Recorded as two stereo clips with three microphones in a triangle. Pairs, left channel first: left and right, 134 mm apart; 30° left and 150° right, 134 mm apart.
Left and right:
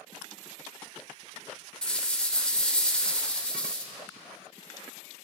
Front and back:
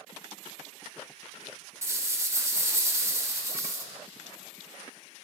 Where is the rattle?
165° left, 0.9 m.